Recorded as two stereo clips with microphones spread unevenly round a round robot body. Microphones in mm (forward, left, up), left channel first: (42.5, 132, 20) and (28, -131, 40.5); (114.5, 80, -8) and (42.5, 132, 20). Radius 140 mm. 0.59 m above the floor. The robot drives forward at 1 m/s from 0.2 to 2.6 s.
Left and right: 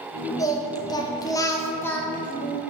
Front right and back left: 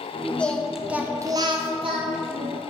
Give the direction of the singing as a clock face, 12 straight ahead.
11 o'clock.